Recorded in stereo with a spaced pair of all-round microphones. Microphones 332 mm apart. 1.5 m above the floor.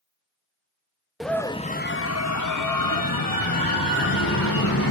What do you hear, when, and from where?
1.2 s a scream: centre (ahead or behind), 0.8 m; by 4.9 s 75° left (ahead or behind), 2 m